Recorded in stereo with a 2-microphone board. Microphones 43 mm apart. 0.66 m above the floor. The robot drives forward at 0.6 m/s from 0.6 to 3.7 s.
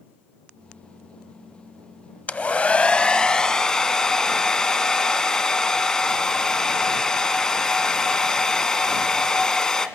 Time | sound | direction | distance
2.3 | a hair dryer | 35° left (ahead or behind) | 0.5 m